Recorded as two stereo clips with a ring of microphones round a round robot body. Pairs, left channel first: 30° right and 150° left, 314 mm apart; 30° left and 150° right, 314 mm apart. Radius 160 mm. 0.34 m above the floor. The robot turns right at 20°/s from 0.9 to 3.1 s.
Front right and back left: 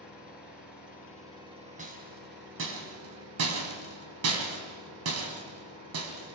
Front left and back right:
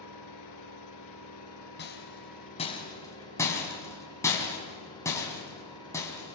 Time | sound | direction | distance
0.0 | an engine running | 65° left | 7 m
1.8 | a rattle | 85° left | 3.5 m